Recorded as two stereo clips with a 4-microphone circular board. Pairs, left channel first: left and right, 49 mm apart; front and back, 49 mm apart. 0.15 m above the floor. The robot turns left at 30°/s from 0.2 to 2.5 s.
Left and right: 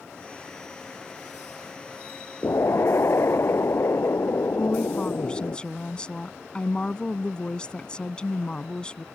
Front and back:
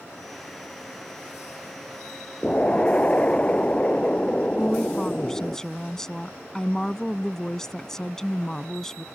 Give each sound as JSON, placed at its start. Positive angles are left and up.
{"t": 2.4, "sound": "an explosion", "azimuth_deg": 65}
{"t": 4.6, "sound": "a woman speaking", "azimuth_deg": 60}